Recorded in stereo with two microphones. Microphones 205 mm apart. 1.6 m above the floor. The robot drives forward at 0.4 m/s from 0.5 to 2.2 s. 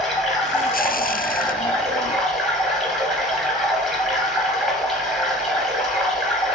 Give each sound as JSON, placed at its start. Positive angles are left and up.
{"t": 0.0, "sound": "running water", "side_deg": 0, "distance_m": 1.5}